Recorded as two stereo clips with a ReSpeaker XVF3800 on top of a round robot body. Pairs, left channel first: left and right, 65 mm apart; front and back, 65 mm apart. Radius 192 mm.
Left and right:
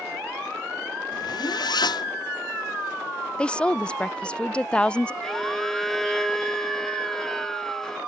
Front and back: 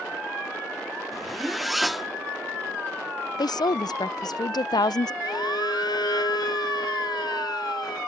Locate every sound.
1.1 s a zipper: 90° left
3.4 s a woman speaking: 15° left
5.2 s a violin: 5° left